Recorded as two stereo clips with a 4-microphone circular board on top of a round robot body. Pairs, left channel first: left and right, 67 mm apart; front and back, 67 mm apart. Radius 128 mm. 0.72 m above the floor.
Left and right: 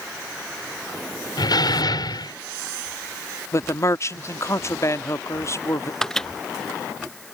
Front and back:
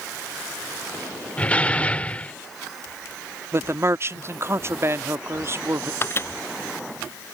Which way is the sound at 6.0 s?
15° left.